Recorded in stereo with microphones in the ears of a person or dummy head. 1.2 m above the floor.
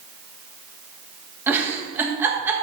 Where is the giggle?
15° right (ahead or behind), 1.5 m.